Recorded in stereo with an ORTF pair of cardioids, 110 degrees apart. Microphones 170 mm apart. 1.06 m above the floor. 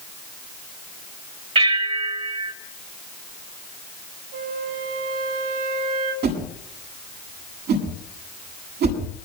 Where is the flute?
70° right, 7 m.